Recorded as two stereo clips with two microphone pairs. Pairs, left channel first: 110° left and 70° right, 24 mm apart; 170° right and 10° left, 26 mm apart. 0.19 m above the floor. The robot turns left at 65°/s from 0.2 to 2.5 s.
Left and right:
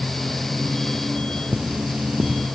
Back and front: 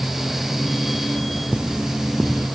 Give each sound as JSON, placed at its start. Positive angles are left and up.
{"t": 1.5, "sound": "cutlery clinking", "azimuth_deg": -30, "distance_m": 2.0}